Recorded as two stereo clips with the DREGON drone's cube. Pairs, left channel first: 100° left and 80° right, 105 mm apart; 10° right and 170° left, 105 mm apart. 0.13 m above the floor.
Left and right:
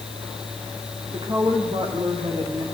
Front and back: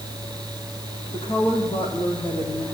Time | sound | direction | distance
1.1 | a woman speaking | 45° right | 8 m